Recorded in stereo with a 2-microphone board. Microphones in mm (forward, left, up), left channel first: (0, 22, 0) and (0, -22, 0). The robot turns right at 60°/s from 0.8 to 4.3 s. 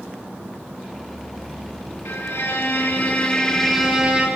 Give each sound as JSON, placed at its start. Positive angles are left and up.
{"t": 2.0, "sound": "a violin", "azimuth_deg": 80, "distance_m": 4.5}